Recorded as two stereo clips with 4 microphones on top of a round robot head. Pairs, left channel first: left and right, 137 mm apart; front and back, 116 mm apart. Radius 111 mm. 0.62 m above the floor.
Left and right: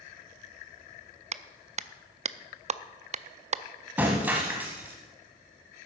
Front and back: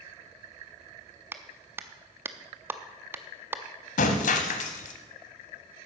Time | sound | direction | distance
1.3 | a clap | 115° right | 0.5 m
4.0 | breaking glass | 10° right | 0.9 m